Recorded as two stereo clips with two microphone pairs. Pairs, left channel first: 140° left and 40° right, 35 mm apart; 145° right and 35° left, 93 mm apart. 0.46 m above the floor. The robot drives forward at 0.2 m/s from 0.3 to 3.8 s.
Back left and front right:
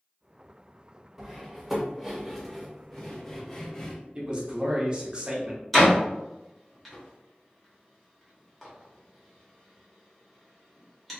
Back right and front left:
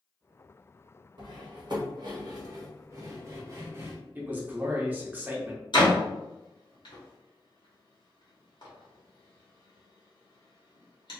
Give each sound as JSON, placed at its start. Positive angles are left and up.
{"t": 1.2, "sound": "cutlery clinking", "azimuth_deg": 40, "distance_m": 0.9}
{"t": 4.2, "sound": "a man speaking", "azimuth_deg": -15, "distance_m": 0.8}
{"t": 5.7, "sound": "a door slam", "azimuth_deg": -140, "distance_m": 1.2}